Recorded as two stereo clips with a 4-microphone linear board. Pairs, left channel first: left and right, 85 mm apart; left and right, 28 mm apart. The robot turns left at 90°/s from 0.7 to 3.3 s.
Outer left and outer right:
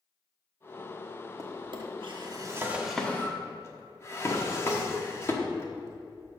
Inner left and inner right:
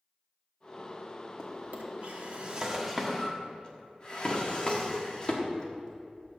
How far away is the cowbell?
I don't hear a cowbell.